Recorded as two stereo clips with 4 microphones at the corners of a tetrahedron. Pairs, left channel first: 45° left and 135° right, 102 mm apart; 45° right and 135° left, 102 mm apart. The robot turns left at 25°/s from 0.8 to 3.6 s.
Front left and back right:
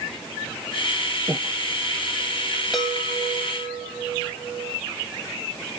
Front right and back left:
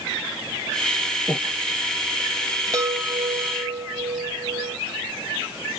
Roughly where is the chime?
Behind left.